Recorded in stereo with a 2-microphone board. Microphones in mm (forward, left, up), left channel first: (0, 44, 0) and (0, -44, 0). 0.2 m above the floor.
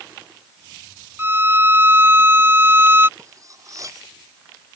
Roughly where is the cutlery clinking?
Right.